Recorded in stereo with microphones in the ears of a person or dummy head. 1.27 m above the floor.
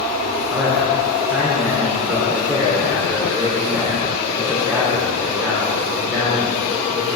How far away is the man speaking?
About 3 m.